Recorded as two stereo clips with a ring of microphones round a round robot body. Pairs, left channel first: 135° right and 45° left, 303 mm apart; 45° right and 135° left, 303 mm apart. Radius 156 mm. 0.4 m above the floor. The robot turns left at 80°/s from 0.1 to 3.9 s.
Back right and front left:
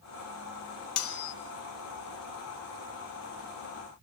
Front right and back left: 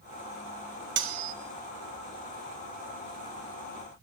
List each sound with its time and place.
1.0 s cutlery clinking: 170° right, 1.4 m; by 1.3 s 160° left, 1.4 m